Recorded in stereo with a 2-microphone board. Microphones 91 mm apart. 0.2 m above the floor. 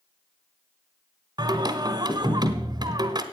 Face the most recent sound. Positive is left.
turn(degrees=-50)  # may be behind; listen again after turning